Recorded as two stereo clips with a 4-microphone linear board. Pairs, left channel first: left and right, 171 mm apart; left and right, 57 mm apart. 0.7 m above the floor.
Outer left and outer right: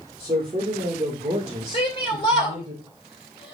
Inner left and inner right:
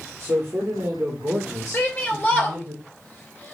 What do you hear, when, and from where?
0.2 s a man speaking: 40° right (ahead or behind), 2.5 m; by 2.7 s 25° right (ahead or behind), 3.5 m
1.7 s a shout: 30° left (ahead or behind), 3.5 m